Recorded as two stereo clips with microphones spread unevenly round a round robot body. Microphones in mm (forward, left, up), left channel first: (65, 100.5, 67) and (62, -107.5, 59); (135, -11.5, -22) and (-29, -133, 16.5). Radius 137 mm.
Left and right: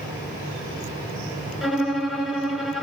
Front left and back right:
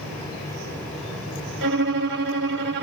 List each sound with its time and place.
1.6 s a violin: straight behind, 1.1 m